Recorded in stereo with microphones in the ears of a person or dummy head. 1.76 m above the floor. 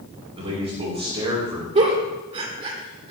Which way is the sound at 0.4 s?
35° right (ahead or behind).